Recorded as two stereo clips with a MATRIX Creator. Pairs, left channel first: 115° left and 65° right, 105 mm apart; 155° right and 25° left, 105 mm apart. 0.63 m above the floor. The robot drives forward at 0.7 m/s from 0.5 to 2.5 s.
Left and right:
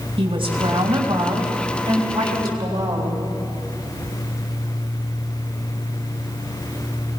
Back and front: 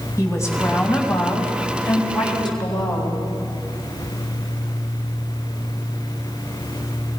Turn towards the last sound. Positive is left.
turn(degrees=-115)